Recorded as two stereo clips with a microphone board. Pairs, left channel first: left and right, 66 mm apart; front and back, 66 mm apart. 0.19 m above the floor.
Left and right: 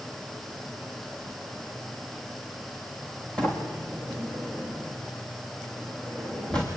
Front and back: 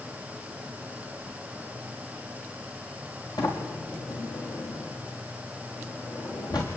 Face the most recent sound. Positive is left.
turn(degrees=15)